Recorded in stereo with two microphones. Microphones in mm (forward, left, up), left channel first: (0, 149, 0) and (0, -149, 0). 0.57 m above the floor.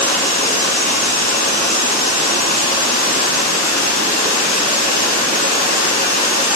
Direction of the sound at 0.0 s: 80° right.